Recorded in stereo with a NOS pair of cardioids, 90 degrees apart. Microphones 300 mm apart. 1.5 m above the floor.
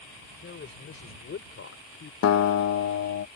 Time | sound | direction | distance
0.4 | a man speaking | 40° left | ?
2.2 | a guitar | 55° left | ?